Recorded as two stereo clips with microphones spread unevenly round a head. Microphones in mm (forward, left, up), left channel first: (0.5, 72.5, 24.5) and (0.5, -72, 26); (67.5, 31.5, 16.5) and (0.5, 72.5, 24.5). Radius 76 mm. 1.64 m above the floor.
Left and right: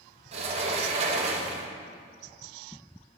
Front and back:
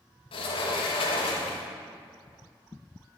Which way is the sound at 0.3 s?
40° right.